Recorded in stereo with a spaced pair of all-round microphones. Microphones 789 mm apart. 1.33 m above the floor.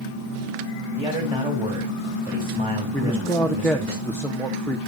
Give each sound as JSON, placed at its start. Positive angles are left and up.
{"t": 1.0, "sound": "a man speaking", "side_deg": -5, "distance_m": 2.5}
{"t": 2.9, "sound": "a man speaking", "side_deg": 5, "distance_m": 0.8}